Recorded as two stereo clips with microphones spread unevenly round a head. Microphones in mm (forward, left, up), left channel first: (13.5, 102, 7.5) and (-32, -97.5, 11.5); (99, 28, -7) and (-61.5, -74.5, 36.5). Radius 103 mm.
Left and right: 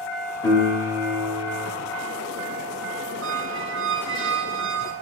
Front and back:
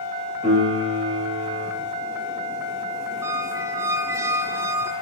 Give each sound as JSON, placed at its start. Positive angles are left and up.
{"t": 0.4, "sound": "a piano", "azimuth_deg": 150, "distance_m": 2.5}
{"t": 3.2, "sound": "a squeak", "azimuth_deg": -70, "distance_m": 0.6}